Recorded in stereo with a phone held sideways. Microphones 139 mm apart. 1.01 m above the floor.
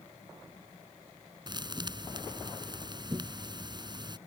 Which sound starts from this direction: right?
A thud, at 1.5 s.